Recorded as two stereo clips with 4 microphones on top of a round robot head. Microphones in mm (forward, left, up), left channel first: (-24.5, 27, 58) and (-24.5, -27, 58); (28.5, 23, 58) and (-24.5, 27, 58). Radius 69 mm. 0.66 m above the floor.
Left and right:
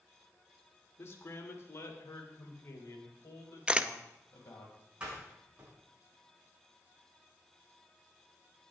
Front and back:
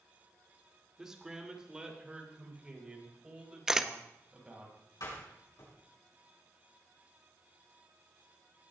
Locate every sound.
1.0 s a man speaking: 95° left, 1.8 m; by 4.7 s 105° left, 4.5 m
3.7 s a camera shutter: 115° right, 0.7 m
5.0 s a door slam: 20° right, 6.5 m